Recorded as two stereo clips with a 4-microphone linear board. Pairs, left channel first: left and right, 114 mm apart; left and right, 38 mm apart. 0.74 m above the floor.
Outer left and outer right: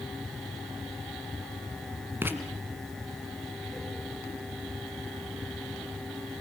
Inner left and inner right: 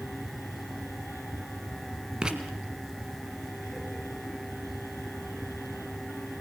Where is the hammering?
No hammering in this recording.